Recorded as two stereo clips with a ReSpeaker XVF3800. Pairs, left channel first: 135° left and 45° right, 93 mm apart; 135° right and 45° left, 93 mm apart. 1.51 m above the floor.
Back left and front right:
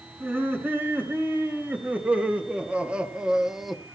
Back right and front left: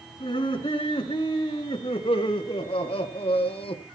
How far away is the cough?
No cough in this recording.